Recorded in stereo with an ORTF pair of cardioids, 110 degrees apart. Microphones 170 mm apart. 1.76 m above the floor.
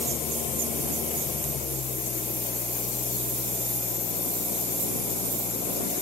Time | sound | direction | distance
0.0 | an engine running | 50° left | ?